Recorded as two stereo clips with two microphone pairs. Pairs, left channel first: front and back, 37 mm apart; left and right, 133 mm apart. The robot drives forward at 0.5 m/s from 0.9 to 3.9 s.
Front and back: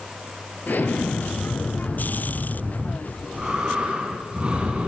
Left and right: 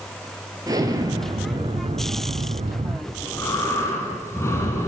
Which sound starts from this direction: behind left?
Breathing, at 3.1 s.